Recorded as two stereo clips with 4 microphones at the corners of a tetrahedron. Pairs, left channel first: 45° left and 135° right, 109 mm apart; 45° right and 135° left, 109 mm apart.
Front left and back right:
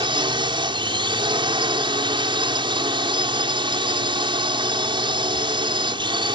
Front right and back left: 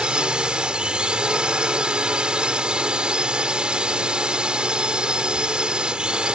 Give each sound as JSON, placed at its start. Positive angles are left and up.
{"t": 0.0, "sound": "a drone", "azimuth_deg": -145}